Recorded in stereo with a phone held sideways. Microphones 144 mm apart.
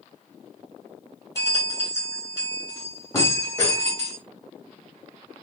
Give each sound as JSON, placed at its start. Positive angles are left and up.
{"t": 1.4, "sound": "a bell", "side_deg": 20, "distance_m": 3.0}